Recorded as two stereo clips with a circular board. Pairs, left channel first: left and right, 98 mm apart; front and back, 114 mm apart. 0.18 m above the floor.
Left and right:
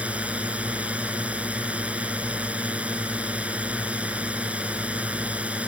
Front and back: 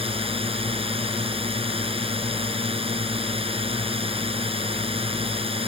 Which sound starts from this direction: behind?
A drone, at 0.0 s.